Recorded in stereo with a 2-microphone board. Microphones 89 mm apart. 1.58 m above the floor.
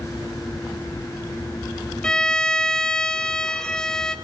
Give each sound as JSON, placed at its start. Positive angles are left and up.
{"t": 2.0, "sound": "a violin", "side_deg": 10, "distance_m": 0.9}